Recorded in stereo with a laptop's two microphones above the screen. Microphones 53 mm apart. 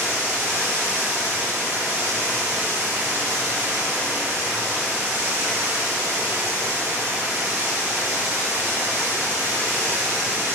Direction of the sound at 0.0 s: 20° right (ahead or behind).